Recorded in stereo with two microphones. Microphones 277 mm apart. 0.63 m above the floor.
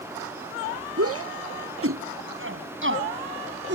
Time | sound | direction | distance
1.0 | a shout | 55° right (ahead or behind) | ?